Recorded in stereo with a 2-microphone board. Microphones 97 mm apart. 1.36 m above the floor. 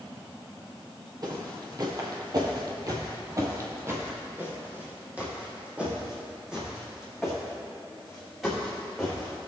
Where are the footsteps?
45° right (ahead or behind), 2.0 m; by 9.5 s centre (ahead or behind), 5 m.